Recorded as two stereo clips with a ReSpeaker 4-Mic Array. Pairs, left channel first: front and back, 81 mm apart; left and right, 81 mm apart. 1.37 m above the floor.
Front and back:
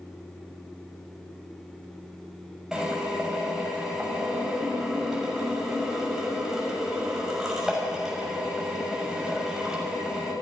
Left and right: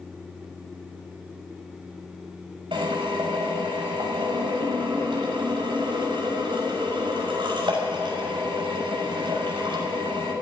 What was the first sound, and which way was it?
A drill, 95° right.